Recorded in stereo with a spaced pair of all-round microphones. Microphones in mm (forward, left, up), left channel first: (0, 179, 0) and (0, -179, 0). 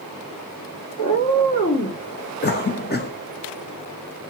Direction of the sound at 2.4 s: 30° left (ahead or behind).